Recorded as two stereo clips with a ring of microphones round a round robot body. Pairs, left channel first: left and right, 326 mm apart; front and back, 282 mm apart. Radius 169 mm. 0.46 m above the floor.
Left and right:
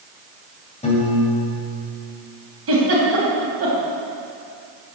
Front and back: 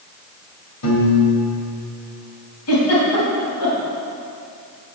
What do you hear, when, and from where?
0.8 s a piano: 20° left, 2.5 m
2.7 s a giggle: 40° right, 3 m